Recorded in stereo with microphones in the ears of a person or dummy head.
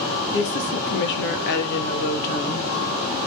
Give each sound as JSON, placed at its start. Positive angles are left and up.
{"t": 0.3, "sound": "a woman speaking", "side_deg": 65, "distance_m": 2.5}